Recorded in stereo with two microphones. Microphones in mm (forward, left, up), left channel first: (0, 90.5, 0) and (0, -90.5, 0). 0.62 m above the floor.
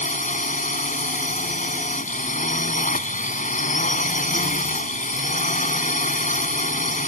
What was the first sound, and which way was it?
A drone, 45° left (ahead or behind).